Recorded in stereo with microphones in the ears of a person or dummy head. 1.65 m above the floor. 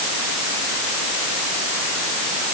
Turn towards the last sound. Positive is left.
No sound to turn to.